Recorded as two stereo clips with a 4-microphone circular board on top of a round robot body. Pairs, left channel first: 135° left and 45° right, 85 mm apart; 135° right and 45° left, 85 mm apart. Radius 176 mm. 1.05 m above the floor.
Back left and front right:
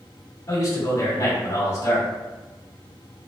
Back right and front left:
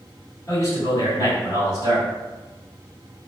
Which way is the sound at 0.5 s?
Straight behind.